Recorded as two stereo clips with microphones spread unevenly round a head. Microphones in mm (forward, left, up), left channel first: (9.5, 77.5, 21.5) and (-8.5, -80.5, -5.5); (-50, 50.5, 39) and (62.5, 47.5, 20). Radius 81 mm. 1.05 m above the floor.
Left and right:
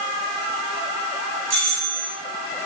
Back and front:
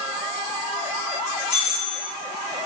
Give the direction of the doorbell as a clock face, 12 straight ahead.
5 o'clock.